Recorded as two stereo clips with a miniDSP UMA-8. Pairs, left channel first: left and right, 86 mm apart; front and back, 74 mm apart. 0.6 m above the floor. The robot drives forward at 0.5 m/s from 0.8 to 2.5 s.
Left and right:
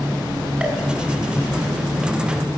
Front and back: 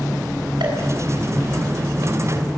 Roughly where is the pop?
Behind.